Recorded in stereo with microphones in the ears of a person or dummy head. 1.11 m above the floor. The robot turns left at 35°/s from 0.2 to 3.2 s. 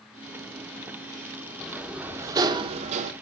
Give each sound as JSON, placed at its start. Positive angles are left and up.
{"t": 1.6, "sound": "a sliding door", "azimuth_deg": 5, "distance_m": 1.1}